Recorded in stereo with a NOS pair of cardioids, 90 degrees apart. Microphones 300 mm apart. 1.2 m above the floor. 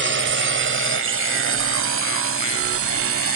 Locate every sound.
0.0 s a drone: 40° right; by 3.4 s 50° right